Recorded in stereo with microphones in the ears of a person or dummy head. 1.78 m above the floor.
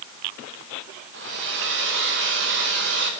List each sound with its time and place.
1.1 s a hair dryer: 60° right (ahead or behind), 4.5 m